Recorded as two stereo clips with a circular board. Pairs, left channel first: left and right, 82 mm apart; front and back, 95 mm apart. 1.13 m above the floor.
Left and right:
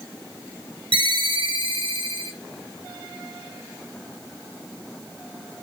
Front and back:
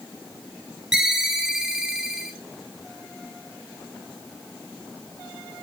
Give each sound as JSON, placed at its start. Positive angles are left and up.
{"t": 0.9, "sound": "a ringtone", "azimuth_deg": -100, "distance_m": 1.1}